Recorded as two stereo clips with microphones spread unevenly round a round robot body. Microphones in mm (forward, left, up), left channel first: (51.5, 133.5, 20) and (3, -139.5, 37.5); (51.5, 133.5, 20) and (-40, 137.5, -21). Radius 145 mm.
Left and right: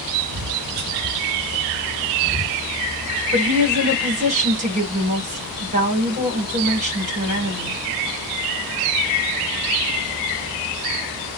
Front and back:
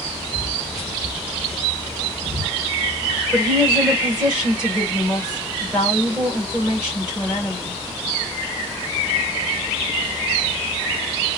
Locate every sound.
0.3 s footsteps: 135° right, 1.1 m; by 2.6 s 145° left, 1.0 m
3.3 s a woman speaking: 155° right, 1.4 m